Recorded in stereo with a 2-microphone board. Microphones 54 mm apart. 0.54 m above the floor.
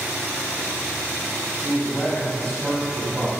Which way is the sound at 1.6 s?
20° left (ahead or behind).